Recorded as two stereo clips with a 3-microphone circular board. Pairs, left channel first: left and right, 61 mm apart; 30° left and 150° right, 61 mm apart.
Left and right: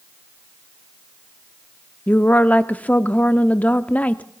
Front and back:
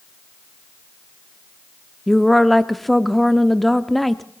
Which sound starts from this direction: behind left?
A woman speaking, at 2.1 s.